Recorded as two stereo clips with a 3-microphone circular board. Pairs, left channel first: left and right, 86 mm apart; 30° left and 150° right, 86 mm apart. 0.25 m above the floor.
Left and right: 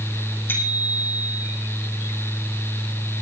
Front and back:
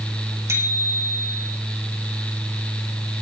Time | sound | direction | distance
0.5 | a bicycle bell | 155° left | 7 m